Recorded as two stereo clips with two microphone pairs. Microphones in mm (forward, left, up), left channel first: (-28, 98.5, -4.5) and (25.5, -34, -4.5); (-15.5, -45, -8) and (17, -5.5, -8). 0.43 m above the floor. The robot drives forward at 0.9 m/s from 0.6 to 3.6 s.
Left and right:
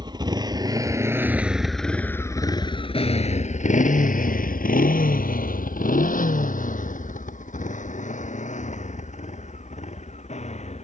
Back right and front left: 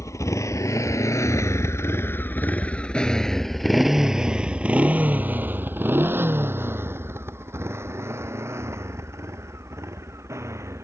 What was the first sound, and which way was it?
A motorcycle, 125° right.